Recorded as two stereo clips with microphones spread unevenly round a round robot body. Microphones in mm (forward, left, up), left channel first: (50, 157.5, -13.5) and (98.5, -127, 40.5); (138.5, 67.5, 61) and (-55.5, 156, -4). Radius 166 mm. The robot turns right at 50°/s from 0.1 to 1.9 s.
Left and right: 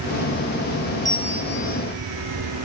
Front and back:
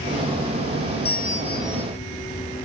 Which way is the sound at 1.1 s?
20° left.